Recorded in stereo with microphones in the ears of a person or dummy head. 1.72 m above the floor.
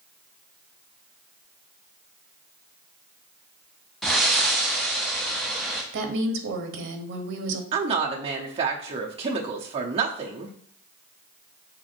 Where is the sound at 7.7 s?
30° right (ahead or behind), 0.9 m.